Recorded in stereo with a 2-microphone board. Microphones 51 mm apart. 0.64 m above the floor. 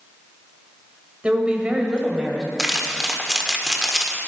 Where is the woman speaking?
25° right (ahead or behind), 2.5 m; by 2.5 s 10° right (ahead or behind), 3 m.